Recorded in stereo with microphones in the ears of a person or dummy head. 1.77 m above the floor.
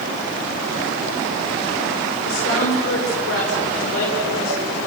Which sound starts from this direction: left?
A woman speaking, at 2.2 s.